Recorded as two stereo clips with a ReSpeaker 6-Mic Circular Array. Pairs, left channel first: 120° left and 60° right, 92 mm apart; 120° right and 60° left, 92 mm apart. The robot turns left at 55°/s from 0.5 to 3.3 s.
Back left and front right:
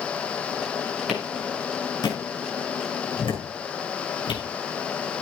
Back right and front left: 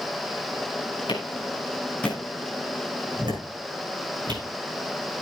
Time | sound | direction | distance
1.1 | a clap | 140° right | 6.5 m